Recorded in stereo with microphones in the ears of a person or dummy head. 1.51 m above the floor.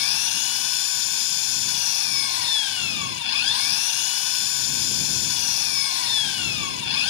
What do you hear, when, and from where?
0.0 s an engine running: 75° left (ahead or behind)